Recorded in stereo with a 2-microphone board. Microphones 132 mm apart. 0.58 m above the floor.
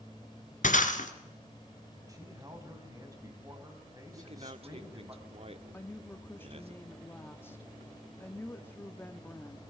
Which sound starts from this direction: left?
Breaking glass, at 0.6 s.